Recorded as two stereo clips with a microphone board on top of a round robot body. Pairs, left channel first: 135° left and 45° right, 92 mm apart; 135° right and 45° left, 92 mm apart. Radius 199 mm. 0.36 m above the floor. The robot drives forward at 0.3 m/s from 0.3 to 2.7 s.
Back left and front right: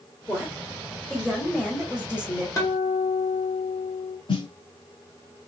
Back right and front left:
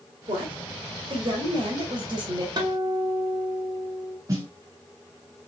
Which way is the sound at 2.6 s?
85° left.